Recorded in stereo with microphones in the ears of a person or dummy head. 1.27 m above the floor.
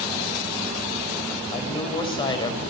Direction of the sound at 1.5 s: 25° left (ahead or behind).